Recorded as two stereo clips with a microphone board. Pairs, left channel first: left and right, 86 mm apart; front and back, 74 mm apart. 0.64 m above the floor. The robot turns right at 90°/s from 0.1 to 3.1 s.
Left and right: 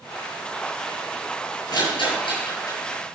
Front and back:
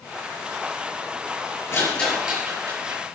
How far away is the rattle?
About 6.5 m.